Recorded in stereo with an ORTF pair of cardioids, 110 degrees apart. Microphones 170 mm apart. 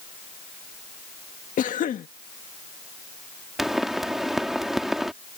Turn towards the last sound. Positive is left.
turn(degrees=0)